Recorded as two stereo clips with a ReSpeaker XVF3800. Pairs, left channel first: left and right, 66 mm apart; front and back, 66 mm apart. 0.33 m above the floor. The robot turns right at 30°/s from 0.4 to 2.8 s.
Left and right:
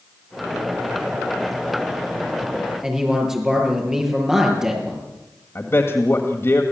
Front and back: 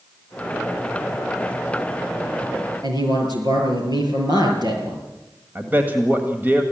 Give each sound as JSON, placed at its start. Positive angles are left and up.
{"t": 2.8, "sound": "a man speaking", "azimuth_deg": -170, "distance_m": 6.5}
{"t": 5.5, "sound": "a man speaking", "azimuth_deg": 130, "distance_m": 1.7}